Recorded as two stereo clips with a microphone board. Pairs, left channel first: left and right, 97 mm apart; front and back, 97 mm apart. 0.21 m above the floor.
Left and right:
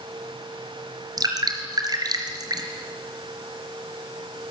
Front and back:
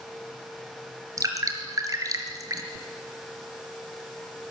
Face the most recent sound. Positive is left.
turn(degrees=-130)